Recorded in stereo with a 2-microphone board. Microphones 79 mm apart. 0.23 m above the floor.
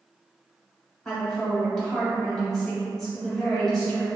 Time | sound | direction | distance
1.1 | a woman speaking | 5° left (ahead or behind) | 0.9 m